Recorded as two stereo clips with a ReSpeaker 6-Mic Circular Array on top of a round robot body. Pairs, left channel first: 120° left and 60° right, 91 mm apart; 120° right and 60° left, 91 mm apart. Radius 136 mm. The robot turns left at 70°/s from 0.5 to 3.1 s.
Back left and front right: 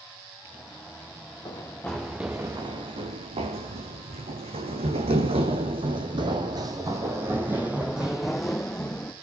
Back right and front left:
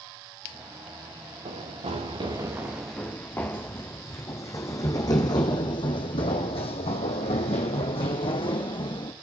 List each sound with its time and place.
1.4 s running footsteps: 75° left, 5 m; by 9.1 s 160° right, 3 m